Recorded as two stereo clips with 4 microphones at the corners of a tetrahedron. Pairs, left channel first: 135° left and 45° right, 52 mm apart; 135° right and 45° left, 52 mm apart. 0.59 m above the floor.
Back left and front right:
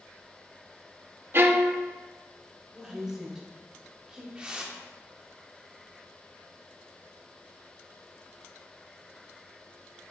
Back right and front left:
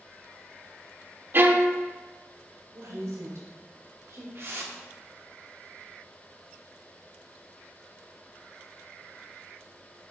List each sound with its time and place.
1.3 s a violin: straight ahead, 0.6 m
2.7 s a woman speaking: 30° left, 1.8 m
4.3 s a whoosh: 20° left, 1.0 m